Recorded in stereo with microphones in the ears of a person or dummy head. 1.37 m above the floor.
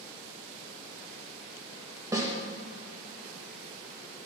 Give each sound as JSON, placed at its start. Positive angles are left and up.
{"t": 2.1, "sound": "a snare drum", "side_deg": -20, "distance_m": 1.1}